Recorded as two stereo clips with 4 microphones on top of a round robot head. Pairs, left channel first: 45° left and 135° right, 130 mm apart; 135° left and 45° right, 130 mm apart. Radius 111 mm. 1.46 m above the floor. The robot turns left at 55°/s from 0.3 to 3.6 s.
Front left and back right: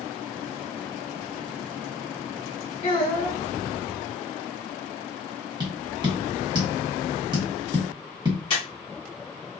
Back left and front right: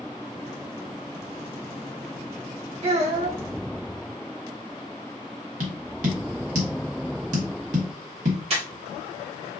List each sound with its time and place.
2.8 s a child speaking: 5° left, 2.0 m; by 3.4 s 30° right, 2.0 m
5.6 s tapping: 75° right, 1.1 m
8.5 s breathing: 5° right, 1.1 m